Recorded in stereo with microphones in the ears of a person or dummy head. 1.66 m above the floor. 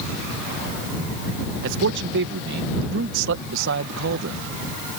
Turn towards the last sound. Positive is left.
turn(degrees=-70)  # may be behind; listen again after turning